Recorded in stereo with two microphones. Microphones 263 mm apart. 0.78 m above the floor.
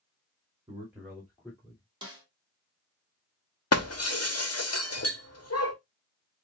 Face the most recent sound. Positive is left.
turn(degrees=65)  # may be behind; listen again after turning